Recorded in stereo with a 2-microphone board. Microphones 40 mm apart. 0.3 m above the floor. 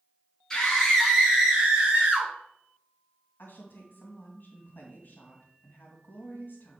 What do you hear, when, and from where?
0.5 s a scream: 10° left (ahead or behind), 2.5 m; by 2.3 s 40° right (ahead or behind), 3 m
3.4 s a woman speaking: 55° left (ahead or behind), 2 m